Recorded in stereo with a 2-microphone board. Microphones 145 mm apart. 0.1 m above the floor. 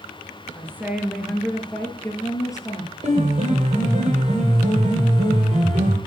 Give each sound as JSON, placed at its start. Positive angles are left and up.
{"t": 0.6, "sound": "a woman speaking", "side_deg": -15, "distance_m": 1.6}
{"t": 3.0, "sound": "a piano", "side_deg": -50, "distance_m": 2.5}